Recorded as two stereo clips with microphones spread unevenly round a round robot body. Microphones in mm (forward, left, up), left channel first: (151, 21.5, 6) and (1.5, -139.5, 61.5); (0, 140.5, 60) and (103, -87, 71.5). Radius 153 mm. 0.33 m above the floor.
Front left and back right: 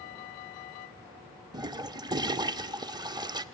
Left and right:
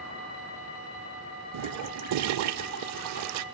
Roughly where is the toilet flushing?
Ahead right.